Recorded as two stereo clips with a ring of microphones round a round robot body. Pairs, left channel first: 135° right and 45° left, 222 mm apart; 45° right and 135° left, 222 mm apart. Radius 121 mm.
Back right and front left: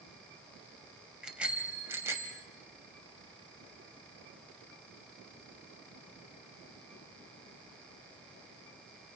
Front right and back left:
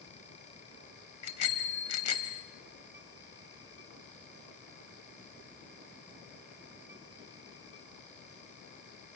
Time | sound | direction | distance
1.2 | a bicycle bell | 40° right | 3.5 m